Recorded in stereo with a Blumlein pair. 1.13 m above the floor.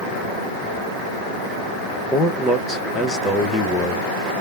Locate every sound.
2.1 s a man speaking: 15° left, 1.1 m